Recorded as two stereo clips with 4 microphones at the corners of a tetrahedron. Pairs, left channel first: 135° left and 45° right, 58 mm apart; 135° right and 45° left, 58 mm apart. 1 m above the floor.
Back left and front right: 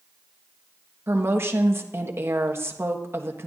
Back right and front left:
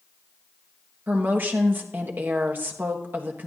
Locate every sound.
1.1 s a woman speaking: 5° right, 1.3 m